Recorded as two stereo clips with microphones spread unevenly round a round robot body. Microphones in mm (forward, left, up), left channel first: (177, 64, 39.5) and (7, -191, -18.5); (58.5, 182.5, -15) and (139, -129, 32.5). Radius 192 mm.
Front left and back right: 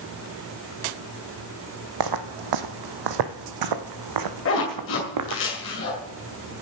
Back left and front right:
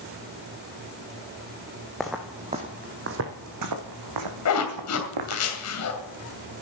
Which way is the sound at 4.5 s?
110° left.